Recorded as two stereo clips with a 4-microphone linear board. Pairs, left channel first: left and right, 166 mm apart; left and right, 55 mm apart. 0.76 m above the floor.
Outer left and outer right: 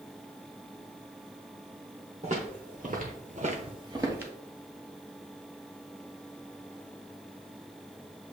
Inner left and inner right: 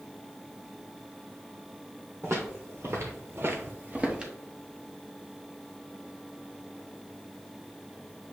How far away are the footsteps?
About 1.8 m.